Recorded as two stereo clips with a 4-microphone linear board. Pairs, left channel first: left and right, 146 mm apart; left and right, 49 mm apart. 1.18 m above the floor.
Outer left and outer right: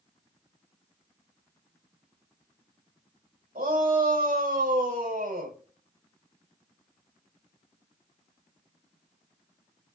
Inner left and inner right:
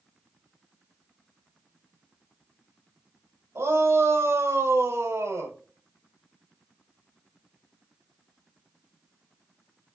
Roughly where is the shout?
Right.